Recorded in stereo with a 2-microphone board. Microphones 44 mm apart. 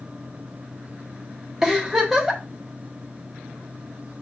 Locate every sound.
1.6 s a giggle: 10° right (ahead or behind), 0.9 m